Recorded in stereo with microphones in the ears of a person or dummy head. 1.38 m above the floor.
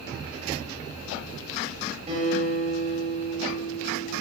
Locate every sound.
2.1 s a guitar: 35° right (ahead or behind), 7.5 m